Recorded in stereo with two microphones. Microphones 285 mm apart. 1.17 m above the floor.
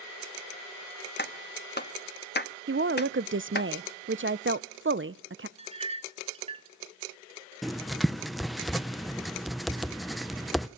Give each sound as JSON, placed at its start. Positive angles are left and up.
{"t": 1.2, "sound": "a clap", "side_deg": 35, "distance_m": 1.2}
{"t": 2.7, "sound": "a woman speaking", "side_deg": -40, "distance_m": 0.6}
{"t": 5.6, "sound": "a clink", "side_deg": -20, "distance_m": 1.4}
{"t": 7.6, "sound": "writing", "side_deg": 0, "distance_m": 0.5}